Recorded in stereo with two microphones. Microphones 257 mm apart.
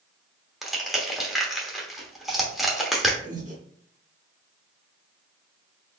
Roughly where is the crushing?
Centre.